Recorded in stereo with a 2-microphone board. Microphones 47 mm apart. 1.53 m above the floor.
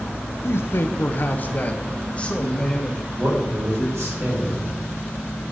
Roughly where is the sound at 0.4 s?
Left.